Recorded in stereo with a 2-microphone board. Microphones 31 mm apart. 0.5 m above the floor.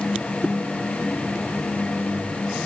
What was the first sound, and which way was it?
Only background noise.